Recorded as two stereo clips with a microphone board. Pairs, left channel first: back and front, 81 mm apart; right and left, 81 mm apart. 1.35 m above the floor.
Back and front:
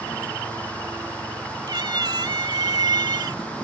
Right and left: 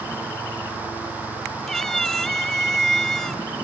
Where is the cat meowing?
5° right.